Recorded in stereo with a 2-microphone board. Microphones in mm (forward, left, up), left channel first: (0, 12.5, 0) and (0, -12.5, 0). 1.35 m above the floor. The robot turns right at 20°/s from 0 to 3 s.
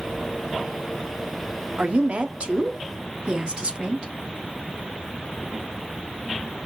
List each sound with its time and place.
1.8 s a woman speaking: 60° right (ahead or behind), 0.8 m; by 4.1 s 40° right (ahead or behind), 0.8 m